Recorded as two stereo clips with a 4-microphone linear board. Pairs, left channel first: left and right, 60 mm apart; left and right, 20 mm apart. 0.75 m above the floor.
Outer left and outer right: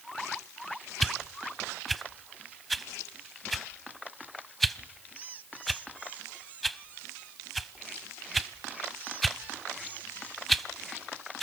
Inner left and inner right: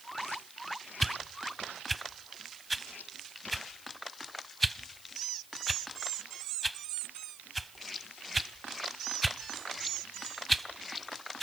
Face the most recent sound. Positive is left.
turn(degrees=0)  # may be behind; listen again after turning